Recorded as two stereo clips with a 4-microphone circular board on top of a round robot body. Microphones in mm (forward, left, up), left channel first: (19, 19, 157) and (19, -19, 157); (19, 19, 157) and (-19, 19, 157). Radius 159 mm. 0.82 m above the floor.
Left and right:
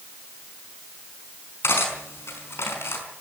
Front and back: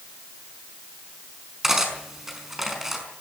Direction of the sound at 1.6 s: 100° left.